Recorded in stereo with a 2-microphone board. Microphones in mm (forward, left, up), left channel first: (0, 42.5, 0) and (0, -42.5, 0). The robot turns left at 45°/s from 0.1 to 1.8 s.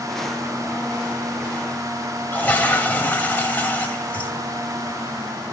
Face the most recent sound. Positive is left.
turn(degrees=20)  # may be behind; listen again after turning